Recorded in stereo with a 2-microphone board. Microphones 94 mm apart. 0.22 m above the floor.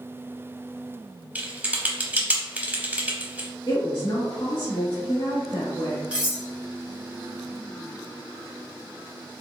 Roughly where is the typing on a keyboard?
Centre.